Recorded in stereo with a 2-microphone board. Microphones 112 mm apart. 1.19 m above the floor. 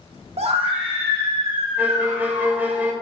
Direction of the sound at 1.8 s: 15° right (ahead or behind).